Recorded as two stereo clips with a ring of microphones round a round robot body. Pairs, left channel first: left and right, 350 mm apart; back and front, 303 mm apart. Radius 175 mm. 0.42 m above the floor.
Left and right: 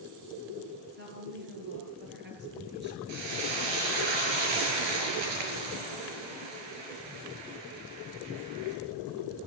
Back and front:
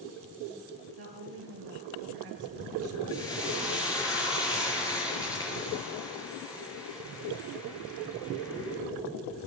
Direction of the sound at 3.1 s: 100° right.